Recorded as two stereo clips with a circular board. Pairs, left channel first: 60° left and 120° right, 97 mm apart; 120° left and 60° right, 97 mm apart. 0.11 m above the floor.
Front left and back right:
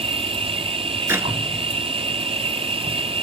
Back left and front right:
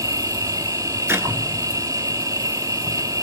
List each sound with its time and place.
0.0 s an insect: 115° right, 0.7 m
1.1 s a clap: 95° right, 1.2 m